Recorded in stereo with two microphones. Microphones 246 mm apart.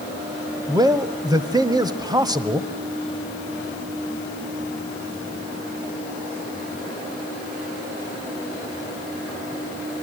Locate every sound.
0.7 s a man speaking: 15° right (ahead or behind), 1.0 m